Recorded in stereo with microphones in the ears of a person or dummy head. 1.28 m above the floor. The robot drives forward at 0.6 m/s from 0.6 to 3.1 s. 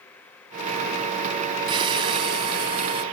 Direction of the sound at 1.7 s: 25° right (ahead or behind).